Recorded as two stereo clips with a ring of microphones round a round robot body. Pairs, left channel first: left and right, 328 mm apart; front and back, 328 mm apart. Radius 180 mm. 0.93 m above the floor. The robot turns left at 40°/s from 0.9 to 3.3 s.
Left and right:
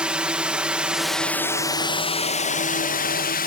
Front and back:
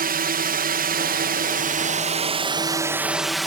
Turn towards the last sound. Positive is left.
turn(degrees=90)